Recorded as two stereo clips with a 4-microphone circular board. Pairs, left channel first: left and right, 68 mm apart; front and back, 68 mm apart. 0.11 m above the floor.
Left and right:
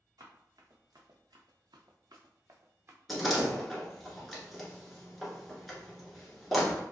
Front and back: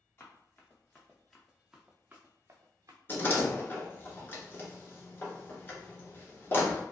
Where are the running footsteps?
55° right, 1.2 m; by 3.0 s 145° right, 0.9 m.